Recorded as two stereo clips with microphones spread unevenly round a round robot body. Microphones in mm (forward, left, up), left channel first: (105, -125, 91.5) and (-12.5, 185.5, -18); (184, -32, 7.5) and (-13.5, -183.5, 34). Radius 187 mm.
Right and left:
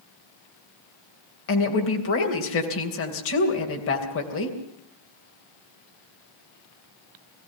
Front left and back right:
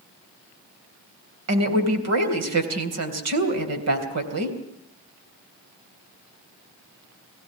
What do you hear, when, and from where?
1.5 s a woman speaking: 130° right, 3 m